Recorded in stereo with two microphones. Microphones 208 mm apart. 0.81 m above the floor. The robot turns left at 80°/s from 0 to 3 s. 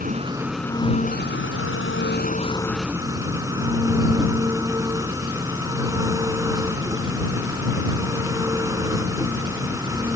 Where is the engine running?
135° right; by 10.2 s 15° right.